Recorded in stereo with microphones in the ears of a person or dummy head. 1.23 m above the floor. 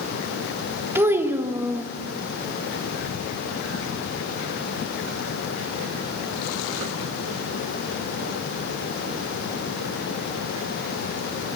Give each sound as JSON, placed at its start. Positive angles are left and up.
{"t": 0.9, "sound": "a child speaking", "side_deg": -15, "distance_m": 1.1}